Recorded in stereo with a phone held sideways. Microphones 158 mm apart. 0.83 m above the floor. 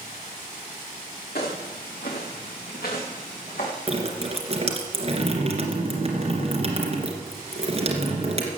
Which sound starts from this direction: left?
Footsteps, at 1.4 s.